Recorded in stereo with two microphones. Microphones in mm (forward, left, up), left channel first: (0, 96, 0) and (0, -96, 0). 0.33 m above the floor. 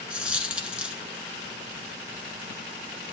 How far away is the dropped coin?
About 1.0 m.